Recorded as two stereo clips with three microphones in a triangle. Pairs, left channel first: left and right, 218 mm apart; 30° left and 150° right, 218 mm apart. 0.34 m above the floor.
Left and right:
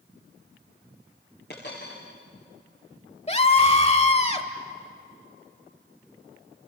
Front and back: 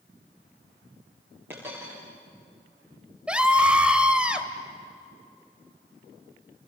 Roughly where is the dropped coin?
Behind left.